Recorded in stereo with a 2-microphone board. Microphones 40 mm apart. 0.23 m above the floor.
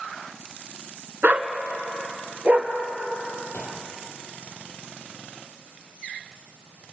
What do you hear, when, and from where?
1.2 s a dog barking: 45° right (ahead or behind), 1.1 m; by 2.7 s 35° right (ahead or behind), 2.5 m
3.5 s a gunshot: 70° left (ahead or behind), 4 m